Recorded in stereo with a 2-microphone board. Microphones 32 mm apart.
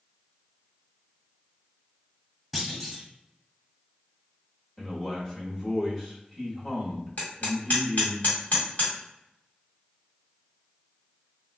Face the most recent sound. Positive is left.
turn(degrees=60)  # may be behind; listen again after turning